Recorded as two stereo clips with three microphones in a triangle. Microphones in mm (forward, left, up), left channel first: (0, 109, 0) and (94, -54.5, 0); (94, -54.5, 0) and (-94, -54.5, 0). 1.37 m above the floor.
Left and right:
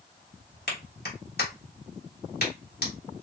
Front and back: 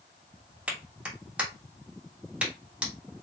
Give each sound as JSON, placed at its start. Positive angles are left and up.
{"t": 0.7, "sound": "a clap", "azimuth_deg": 95, "distance_m": 1.4}